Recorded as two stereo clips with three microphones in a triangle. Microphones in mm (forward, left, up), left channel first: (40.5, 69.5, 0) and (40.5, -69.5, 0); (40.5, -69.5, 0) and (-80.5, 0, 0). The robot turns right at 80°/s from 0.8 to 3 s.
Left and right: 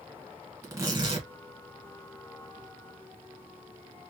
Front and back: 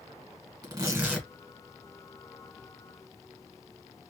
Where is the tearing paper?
150° right, 2.0 m; by 1.3 s 110° right, 2.0 m.